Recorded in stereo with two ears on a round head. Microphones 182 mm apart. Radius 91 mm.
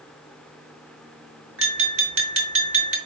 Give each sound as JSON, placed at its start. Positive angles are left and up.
{"t": 1.6, "sound": "tapping", "side_deg": -70, "distance_m": 3.5}